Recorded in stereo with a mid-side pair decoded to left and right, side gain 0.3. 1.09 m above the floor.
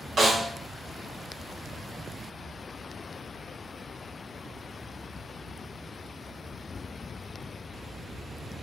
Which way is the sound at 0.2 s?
65° right.